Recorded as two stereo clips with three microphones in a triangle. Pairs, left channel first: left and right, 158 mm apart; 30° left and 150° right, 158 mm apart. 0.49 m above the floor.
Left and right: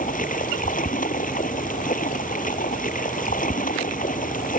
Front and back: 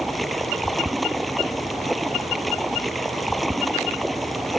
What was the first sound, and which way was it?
Running water, 120° left.